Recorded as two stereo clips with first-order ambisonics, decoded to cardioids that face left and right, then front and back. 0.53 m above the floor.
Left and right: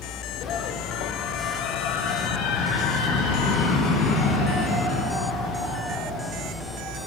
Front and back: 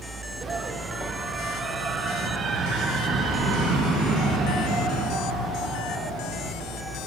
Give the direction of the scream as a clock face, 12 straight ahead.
8 o'clock.